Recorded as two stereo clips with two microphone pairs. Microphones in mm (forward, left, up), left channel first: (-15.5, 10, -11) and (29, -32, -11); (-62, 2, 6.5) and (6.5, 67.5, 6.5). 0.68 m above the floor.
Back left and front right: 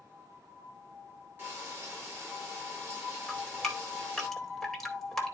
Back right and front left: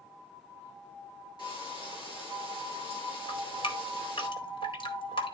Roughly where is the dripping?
Behind right.